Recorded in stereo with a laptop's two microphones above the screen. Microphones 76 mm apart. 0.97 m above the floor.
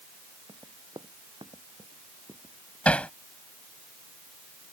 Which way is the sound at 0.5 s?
85° right.